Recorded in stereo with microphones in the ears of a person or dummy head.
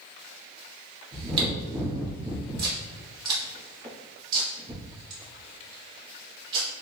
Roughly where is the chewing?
Right.